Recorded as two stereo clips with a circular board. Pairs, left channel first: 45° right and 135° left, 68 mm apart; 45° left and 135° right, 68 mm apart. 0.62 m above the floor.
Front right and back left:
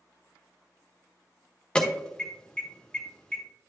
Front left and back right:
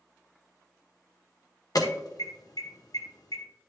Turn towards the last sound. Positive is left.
turn(degrees=30)